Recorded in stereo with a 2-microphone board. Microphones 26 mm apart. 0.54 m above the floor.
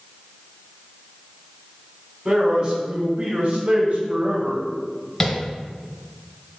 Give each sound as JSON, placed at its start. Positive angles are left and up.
{"t": 2.2, "sound": "a man speaking", "side_deg": -45, "distance_m": 2.5}
{"t": 5.2, "sound": "tapping", "side_deg": 10, "distance_m": 2.5}